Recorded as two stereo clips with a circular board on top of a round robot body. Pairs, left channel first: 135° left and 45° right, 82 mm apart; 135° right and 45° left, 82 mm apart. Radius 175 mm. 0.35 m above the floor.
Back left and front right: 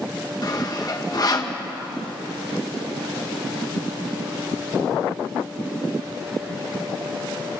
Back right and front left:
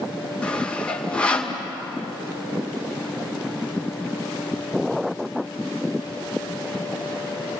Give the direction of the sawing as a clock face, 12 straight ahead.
7 o'clock.